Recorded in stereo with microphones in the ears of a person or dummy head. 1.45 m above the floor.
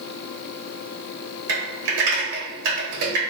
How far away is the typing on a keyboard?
About 1.3 m.